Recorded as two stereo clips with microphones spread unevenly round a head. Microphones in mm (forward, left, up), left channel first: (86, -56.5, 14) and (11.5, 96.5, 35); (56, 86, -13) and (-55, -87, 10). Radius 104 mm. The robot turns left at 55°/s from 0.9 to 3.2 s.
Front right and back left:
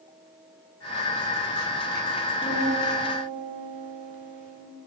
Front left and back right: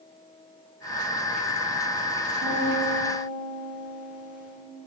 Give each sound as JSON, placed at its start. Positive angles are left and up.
{"t": 2.4, "sound": "a piano", "azimuth_deg": -165, "distance_m": 2.0}